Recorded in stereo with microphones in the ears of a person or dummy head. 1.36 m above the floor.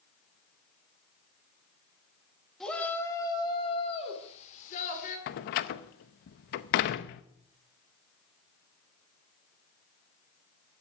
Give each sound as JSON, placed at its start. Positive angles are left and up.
{"t": 2.6, "sound": "a shout", "side_deg": 0, "distance_m": 2.5}
{"t": 5.3, "sound": "a door slam", "side_deg": 40, "distance_m": 0.7}